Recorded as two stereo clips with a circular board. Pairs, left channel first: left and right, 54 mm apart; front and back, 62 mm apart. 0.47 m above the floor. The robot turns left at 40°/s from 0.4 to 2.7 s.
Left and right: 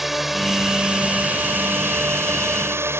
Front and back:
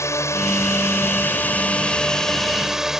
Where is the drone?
5° right; by 3.0 s 100° right.